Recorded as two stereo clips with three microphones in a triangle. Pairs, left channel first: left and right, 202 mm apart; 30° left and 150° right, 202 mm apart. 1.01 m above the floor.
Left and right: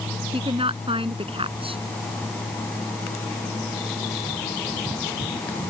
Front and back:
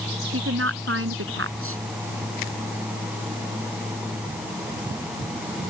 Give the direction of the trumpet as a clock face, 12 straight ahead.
I don't hear a trumpet.